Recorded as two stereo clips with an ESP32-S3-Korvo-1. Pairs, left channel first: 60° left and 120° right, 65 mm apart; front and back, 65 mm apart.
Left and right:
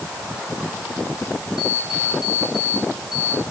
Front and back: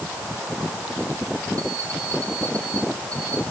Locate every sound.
1.6 s an alarm clock: 165° left, 6.5 m